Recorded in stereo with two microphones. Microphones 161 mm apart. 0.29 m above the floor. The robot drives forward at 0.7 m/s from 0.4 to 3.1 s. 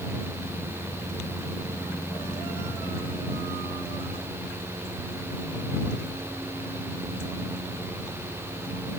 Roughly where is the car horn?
No car horn in this recording.